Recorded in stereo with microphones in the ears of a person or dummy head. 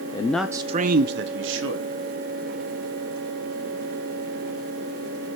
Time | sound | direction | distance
0.1 | a man speaking | 25° left (ahead or behind) | 0.6 m